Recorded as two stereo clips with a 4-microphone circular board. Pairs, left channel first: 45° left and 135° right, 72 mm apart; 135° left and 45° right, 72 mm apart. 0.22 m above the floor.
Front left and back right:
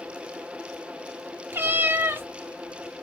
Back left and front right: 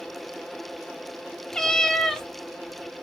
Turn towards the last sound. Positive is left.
turn(degrees=-145)